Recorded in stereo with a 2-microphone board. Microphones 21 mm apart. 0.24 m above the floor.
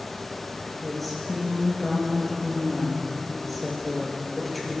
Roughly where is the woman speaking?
Centre.